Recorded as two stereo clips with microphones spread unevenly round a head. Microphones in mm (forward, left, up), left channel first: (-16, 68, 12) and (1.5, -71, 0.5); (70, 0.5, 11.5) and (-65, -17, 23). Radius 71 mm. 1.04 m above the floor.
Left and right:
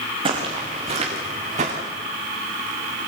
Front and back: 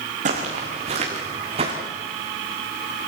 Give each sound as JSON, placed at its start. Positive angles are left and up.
{"t": 0.2, "sound": "footsteps", "azimuth_deg": -140, "distance_m": 4.5}